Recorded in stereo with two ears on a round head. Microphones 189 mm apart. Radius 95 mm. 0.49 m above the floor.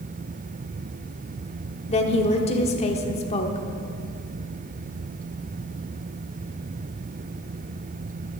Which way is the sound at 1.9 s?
30° left (ahead or behind).